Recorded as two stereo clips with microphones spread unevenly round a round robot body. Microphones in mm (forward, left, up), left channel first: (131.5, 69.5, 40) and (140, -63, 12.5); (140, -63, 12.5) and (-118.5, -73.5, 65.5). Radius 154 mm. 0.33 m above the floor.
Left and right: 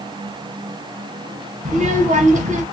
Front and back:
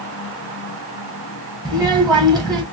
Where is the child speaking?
80° right, 1.2 m.